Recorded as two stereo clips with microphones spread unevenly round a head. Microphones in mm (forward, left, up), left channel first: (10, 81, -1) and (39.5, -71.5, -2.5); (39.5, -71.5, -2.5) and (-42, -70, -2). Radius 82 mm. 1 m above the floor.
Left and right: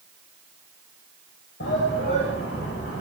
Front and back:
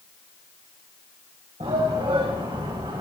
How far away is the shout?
About 5.5 m.